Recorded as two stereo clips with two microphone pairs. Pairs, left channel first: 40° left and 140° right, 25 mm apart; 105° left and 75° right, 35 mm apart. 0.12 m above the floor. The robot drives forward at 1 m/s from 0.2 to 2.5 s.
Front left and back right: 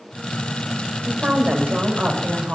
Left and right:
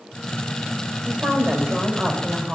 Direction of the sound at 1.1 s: 115° right.